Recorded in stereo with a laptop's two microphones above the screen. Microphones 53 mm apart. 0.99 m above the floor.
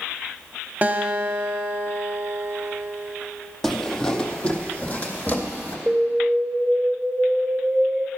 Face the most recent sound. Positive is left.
turn(degrees=-25)  # may be behind; listen again after turning